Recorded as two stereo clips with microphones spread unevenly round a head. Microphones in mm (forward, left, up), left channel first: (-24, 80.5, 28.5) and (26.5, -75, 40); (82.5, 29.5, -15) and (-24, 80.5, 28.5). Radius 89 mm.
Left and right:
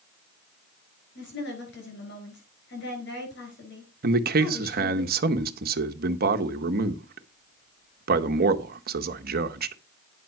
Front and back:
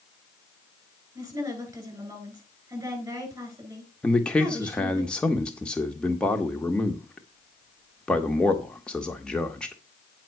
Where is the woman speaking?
90° left, 8 m.